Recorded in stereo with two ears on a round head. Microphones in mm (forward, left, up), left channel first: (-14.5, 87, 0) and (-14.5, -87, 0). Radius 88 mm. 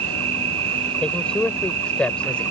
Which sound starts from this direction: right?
An insect, at 0.0 s.